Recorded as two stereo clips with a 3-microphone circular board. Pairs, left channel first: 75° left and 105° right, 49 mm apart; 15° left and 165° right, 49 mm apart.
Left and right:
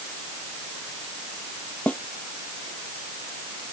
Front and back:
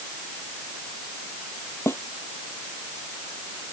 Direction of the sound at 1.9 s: 15° left.